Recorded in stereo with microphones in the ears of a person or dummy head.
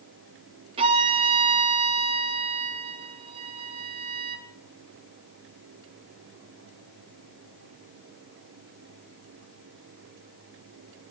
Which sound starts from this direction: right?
A violin, at 0.8 s.